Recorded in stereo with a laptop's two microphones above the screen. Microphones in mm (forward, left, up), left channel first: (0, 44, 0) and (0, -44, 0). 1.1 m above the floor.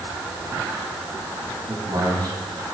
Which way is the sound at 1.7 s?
50° right (ahead or behind).